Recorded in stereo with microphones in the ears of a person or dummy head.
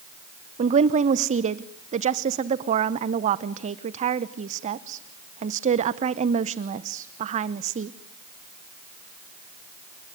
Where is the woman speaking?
40° right (ahead or behind), 0.8 m.